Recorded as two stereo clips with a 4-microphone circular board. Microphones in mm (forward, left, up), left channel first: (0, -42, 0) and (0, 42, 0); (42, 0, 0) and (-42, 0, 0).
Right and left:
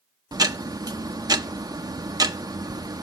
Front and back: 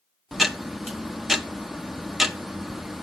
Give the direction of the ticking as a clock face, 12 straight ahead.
9 o'clock.